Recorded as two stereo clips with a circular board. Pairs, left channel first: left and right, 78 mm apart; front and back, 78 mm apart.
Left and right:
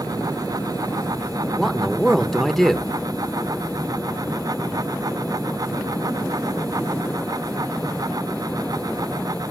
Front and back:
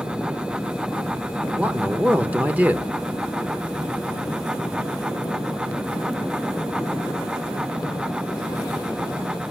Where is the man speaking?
170° left, 0.9 m.